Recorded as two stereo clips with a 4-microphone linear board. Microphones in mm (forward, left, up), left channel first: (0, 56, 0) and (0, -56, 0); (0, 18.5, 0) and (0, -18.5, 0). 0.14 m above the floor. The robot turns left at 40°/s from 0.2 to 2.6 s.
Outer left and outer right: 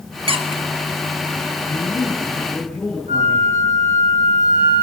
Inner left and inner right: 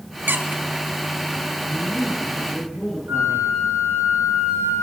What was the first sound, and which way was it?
A squeak, 60° right (ahead or behind).